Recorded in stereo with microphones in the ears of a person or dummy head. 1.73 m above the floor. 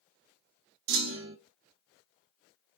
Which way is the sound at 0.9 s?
75° right (ahead or behind).